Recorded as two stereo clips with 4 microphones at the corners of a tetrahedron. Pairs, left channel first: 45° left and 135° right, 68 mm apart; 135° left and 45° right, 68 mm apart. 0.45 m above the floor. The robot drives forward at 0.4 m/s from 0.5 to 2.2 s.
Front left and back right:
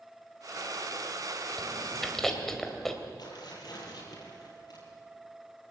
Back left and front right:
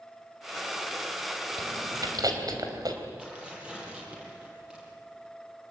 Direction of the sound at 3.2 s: 30° left.